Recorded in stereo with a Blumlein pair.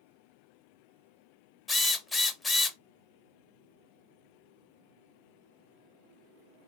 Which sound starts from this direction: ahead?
A drill, at 1.7 s.